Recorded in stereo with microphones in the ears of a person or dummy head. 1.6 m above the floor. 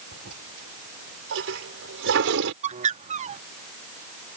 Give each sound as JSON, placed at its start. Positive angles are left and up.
{"t": 0.1, "sound": "a toilet flushing", "side_deg": -70}
{"t": 2.6, "sound": "a bird", "side_deg": -40}